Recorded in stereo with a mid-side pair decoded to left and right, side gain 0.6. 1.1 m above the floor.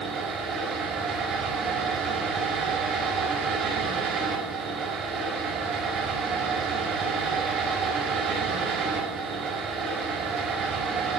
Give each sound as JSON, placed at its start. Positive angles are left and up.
{"t": 0.0, "sound": "a fan", "azimuth_deg": -50, "distance_m": 6.0}